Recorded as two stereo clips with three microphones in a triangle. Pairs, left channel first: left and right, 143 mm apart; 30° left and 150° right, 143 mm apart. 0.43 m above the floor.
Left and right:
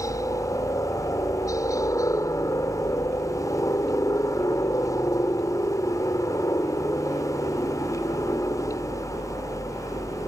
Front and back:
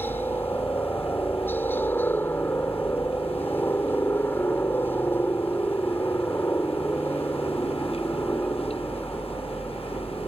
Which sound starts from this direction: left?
A helicopter, at 0.0 s.